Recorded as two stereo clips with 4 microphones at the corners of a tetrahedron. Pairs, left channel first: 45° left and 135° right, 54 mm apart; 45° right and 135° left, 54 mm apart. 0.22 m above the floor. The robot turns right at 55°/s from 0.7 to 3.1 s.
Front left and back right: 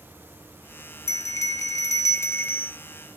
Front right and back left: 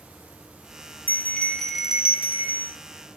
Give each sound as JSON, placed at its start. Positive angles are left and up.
{"t": 1.1, "sound": "a bell", "azimuth_deg": 10, "distance_m": 0.5}